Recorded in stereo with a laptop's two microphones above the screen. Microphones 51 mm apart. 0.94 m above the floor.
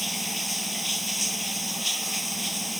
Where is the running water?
Centre (ahead or behind).